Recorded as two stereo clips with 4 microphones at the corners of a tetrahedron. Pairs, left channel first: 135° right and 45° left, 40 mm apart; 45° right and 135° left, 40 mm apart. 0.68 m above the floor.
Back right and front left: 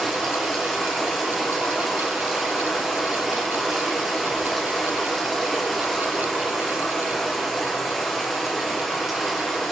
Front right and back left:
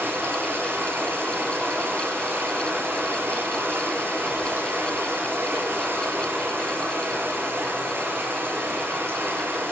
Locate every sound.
0.0 s running water: 140° left, 6.5 m